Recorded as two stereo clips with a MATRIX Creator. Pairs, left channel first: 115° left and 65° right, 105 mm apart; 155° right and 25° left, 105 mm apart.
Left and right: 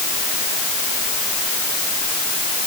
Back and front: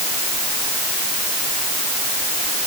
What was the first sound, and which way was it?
Only background noise.